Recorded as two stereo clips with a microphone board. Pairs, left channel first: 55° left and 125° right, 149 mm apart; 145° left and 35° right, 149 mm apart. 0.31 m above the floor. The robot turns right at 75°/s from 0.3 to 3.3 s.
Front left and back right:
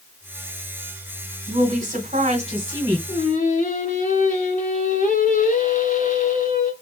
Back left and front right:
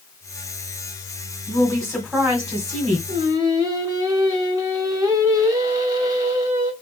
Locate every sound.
1.5 s a woman speaking: 170° right, 1.4 m; by 3.0 s 60° right, 1.4 m
3.1 s singing: 15° left, 1.2 m; by 6.7 s 30° left, 1.2 m